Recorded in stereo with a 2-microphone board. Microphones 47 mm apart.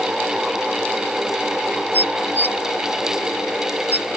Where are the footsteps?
No footsteps in this recording.